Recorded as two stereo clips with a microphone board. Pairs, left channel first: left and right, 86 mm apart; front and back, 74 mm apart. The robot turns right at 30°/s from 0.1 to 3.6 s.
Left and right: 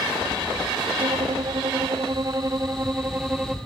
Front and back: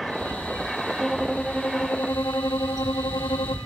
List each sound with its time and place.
1.0 s a violin: 85° right, 0.9 m; by 3.6 s 10° right, 0.9 m